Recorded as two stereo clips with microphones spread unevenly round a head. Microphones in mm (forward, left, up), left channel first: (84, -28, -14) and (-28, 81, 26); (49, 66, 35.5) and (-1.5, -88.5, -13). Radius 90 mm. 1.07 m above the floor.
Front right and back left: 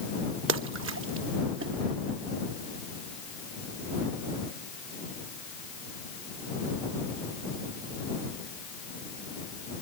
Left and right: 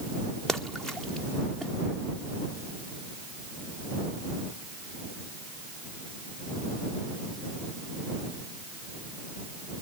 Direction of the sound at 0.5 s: 160° left.